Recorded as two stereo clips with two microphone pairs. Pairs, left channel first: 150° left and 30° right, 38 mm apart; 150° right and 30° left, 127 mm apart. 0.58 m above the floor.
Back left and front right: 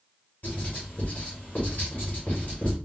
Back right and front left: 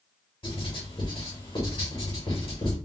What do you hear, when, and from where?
0.4 s writing: 175° left, 2.5 m